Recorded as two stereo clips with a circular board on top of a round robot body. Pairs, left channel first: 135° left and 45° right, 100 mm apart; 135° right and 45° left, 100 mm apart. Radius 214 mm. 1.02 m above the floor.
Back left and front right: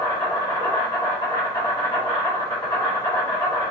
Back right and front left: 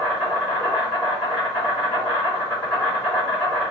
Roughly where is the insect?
Behind.